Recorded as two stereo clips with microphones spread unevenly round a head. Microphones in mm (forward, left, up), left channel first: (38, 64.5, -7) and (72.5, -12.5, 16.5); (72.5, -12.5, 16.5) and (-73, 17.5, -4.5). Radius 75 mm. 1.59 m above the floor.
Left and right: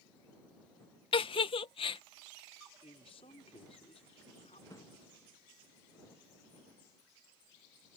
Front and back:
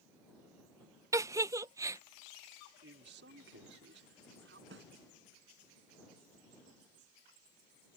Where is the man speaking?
160° left.